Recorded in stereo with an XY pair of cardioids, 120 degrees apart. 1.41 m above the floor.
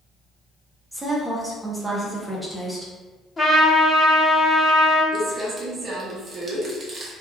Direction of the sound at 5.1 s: 35° right.